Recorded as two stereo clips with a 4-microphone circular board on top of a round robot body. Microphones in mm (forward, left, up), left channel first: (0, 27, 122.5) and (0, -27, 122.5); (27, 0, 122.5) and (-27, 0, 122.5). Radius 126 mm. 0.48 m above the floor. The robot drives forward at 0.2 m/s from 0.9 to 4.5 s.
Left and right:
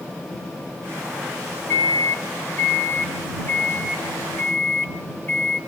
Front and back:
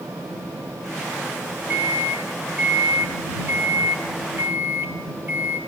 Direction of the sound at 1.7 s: 125° left.